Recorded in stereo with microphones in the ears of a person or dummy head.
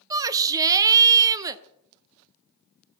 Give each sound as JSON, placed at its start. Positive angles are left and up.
{"t": 0.1, "sound": "a shout", "side_deg": -20, "distance_m": 0.7}